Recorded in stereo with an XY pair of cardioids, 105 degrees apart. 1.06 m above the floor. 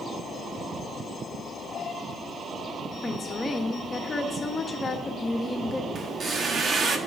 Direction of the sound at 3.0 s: 30° left.